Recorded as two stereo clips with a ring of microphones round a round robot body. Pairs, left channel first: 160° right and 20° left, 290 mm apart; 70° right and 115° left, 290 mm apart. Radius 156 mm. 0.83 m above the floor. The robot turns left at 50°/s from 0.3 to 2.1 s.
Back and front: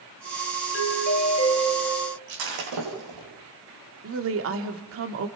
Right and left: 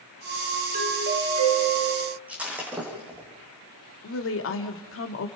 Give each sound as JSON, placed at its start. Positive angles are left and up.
{"t": 0.7, "sound": "a doorbell", "azimuth_deg": 165, "distance_m": 2.5}
{"t": 2.3, "sound": "breaking glass", "azimuth_deg": 25, "distance_m": 6.5}
{"t": 4.0, "sound": "a woman speaking", "azimuth_deg": -20, "distance_m": 1.9}